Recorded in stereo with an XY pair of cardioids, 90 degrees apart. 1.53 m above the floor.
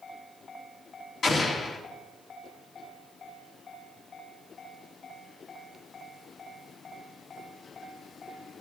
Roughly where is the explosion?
Ahead left.